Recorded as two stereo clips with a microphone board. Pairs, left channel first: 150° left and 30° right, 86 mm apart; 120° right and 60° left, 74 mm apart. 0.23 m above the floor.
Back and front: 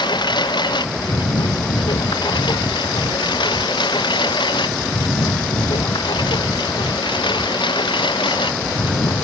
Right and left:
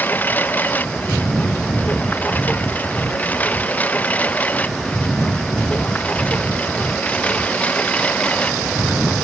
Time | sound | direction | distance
0.0 | a lawn mower | 175° left | ?